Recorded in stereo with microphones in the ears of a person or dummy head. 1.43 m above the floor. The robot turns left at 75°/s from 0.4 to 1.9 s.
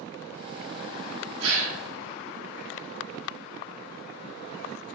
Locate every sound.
1.4 s a gasp: 70° right (ahead or behind), 1.8 m; by 1.8 s 80° right, 1.8 m